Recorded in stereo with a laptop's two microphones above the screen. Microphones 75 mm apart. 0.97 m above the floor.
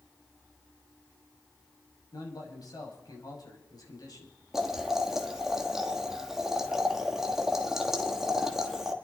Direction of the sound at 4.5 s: 5° right (ahead or behind).